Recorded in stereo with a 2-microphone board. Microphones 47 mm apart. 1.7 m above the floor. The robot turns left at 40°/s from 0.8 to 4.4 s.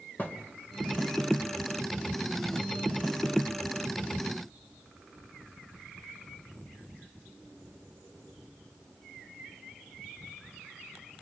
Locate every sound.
0.2 s a thud: 35° left (ahead or behind), 1.7 m